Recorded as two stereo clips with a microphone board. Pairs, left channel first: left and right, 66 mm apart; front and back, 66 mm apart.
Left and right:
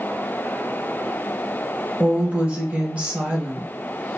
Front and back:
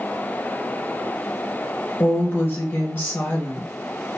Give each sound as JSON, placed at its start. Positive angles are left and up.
{"t": 2.0, "sound": "a woman speaking", "azimuth_deg": -30, "distance_m": 0.9}